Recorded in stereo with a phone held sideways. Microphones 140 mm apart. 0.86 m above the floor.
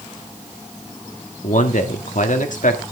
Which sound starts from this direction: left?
A man speaking, at 1.4 s.